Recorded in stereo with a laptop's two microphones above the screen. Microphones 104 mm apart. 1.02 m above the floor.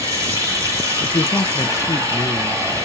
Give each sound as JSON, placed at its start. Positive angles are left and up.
{"t": 0.0, "sound": "running water", "side_deg": -30, "distance_m": 2.5}
{"t": 1.0, "sound": "a man speaking", "side_deg": 30, "distance_m": 0.5}